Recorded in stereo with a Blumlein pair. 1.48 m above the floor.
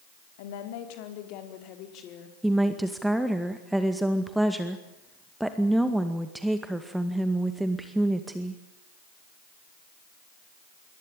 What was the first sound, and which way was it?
A woman speaking, 50° left.